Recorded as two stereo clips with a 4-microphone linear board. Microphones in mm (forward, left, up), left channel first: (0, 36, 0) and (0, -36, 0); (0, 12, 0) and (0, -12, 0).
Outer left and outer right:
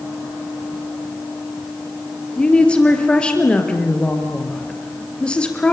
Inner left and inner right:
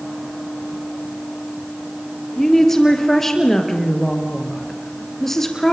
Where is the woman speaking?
15° left (ahead or behind), 4 m.